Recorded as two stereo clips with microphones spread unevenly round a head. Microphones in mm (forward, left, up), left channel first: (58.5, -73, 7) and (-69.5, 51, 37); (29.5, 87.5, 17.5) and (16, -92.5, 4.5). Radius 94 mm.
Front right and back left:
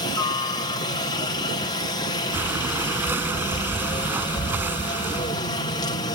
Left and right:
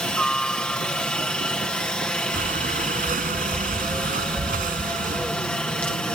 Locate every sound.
0.0 s a helicopter: straight ahead
2.3 s breathing: 145° right